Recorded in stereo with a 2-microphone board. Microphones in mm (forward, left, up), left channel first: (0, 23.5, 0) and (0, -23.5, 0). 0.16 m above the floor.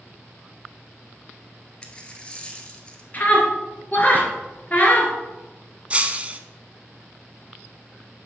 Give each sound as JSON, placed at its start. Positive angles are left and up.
{"t": 1.8, "sound": "a dropped coin", "side_deg": 20, "distance_m": 1.3}
{"t": 3.1, "sound": "a scream", "side_deg": 35, "distance_m": 2.5}
{"t": 5.9, "sound": "breaking glass", "side_deg": -25, "distance_m": 0.7}